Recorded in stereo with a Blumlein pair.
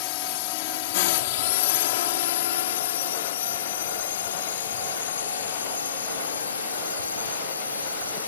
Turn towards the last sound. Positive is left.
turn(degrees=75)